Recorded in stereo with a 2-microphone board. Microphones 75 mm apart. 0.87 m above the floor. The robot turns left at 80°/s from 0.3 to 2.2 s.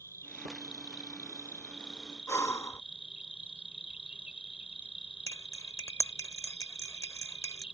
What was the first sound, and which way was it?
An insect, 135° left.